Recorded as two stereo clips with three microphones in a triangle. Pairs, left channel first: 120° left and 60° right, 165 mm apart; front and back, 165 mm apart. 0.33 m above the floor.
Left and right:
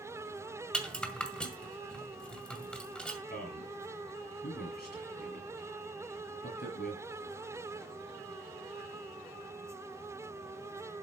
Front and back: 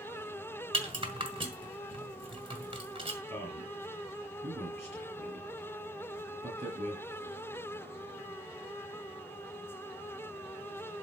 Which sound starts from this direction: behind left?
A man speaking, at 3.3 s.